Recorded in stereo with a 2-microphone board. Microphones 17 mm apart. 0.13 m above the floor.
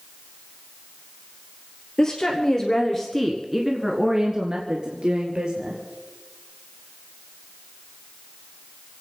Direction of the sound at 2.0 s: 45° left (ahead or behind).